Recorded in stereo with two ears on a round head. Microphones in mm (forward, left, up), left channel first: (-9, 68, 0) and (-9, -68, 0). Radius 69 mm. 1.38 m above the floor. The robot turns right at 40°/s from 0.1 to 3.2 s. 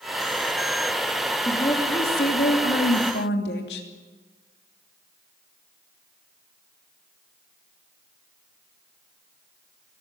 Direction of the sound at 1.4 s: 20° left.